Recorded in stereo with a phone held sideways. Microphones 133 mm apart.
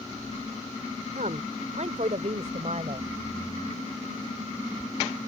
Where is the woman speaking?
70° right (ahead or behind); by 3.1 s 55° right (ahead or behind).